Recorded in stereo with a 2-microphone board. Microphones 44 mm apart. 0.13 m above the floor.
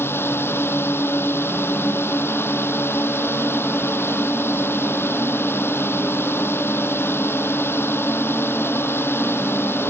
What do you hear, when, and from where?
0.0 s a drone: 70° left (ahead or behind)